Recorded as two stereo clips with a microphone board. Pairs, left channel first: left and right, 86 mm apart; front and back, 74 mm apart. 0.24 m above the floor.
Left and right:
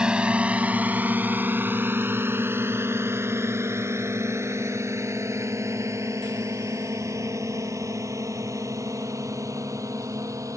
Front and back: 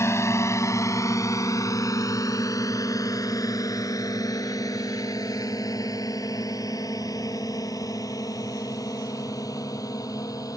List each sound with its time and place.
0.0 s a drone: 15° right; by 10.6 s 40° right